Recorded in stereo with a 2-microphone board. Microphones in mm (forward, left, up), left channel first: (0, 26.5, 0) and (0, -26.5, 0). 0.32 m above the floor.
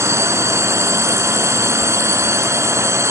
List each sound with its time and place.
0.0 s a drone: 60° right (ahead or behind)